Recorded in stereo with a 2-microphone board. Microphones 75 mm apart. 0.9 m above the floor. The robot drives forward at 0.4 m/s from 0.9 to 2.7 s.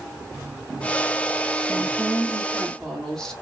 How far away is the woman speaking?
About 0.9 m.